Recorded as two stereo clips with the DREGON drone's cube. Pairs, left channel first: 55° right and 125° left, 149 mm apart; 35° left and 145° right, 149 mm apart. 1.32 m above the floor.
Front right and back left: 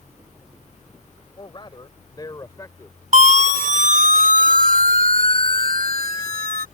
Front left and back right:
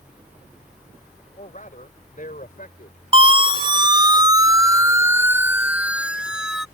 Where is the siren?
165° left; by 6.7 s 125° left.